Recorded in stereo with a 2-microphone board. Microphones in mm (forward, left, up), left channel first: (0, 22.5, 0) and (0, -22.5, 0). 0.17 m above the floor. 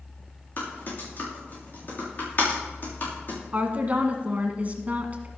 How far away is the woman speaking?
About 1.6 m.